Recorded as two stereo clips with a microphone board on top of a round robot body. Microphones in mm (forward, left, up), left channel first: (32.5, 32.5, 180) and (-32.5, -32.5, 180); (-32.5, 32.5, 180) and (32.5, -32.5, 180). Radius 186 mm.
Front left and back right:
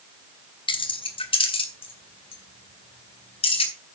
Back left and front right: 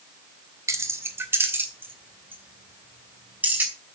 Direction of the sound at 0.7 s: 15° left.